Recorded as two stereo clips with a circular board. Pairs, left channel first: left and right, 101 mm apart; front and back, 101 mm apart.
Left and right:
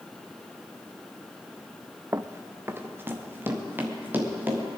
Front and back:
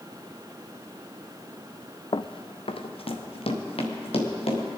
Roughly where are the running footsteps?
Ahead right.